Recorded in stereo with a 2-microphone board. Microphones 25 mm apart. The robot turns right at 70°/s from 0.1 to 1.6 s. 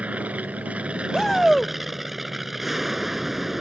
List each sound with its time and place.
0.0 s an aircraft: 115° right; by 3.6 s 10° right
1.1 s a shout: 15° left (ahead or behind); by 1.7 s 5° left (ahead or behind)